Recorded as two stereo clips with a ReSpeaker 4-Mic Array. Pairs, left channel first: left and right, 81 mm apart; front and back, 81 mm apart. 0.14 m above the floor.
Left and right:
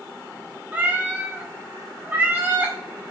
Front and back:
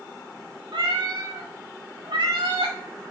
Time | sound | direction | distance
0.7 | a cat meowing | 160° right | 2 m